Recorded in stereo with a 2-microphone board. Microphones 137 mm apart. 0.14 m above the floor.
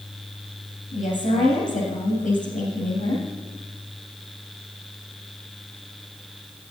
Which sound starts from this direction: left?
A woman speaking, at 0.9 s.